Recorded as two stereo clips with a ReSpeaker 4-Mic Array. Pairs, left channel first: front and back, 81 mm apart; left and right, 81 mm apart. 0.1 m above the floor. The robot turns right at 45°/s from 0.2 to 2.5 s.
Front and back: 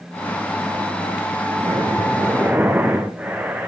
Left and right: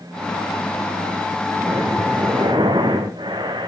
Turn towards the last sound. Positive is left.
turn(degrees=-110)